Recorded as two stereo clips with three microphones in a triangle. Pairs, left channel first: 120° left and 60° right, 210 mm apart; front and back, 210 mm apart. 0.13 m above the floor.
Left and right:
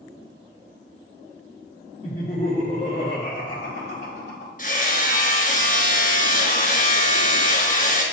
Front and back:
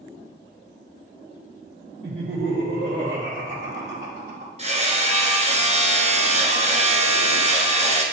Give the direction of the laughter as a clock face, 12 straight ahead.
6 o'clock.